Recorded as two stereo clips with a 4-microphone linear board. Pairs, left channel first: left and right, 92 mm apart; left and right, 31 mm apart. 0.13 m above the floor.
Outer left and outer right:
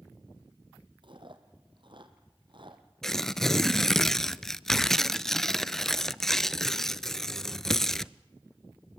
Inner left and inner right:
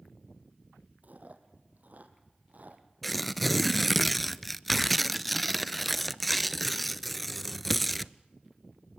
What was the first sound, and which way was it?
Chewing, 60° right (ahead or behind).